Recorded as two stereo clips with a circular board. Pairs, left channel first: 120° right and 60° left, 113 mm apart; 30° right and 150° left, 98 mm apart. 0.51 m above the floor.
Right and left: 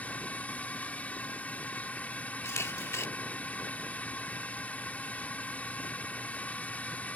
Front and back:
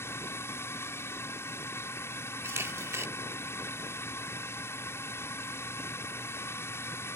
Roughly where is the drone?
Ahead right.